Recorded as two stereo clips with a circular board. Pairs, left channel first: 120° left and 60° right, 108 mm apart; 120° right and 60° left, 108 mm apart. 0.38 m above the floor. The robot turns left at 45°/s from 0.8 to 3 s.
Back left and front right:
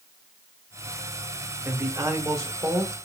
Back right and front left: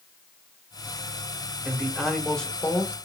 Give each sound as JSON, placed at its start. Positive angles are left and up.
{"t": 1.6, "sound": "a man speaking", "azimuth_deg": -10, "distance_m": 1.6}